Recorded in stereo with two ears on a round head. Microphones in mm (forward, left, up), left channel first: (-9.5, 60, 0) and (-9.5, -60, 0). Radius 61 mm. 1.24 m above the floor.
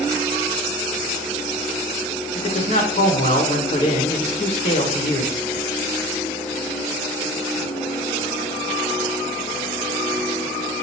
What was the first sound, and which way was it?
A man speaking, 45° left (ahead or behind).